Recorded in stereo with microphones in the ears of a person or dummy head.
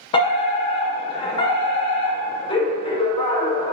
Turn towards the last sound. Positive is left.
turn(degrees=25)  # may be behind; listen again after turning